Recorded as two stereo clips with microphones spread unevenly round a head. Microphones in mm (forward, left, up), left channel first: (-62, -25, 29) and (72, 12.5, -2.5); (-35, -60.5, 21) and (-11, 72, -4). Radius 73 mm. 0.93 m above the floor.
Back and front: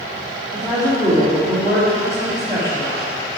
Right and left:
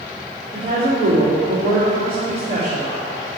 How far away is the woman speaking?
About 2.5 m.